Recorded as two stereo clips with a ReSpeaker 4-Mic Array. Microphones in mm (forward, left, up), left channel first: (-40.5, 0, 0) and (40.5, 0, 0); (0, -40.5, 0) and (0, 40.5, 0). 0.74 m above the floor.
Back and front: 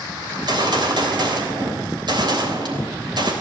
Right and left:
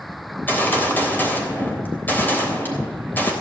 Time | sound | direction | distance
0.3 | a gunshot | 25° right | 3 m